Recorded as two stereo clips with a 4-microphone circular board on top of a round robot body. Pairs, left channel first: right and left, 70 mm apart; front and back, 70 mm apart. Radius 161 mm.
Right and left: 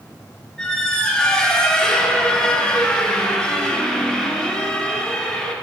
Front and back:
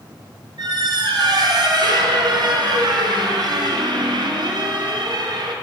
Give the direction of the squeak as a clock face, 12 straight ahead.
6 o'clock.